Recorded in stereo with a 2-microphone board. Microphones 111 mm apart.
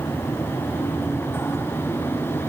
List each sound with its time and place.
Only background noise.